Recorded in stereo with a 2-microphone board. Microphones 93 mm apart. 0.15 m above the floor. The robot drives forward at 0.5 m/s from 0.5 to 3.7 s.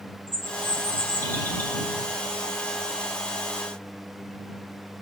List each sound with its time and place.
0.3 s a bird: 20° left (ahead or behind), 3 m; by 1.8 s 25° left (ahead or behind), 2.5 m